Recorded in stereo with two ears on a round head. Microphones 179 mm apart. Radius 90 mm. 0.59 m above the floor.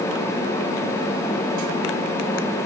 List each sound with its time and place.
Only background noise.